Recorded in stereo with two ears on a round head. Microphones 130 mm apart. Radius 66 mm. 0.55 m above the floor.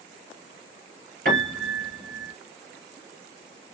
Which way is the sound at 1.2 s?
65° right (ahead or behind).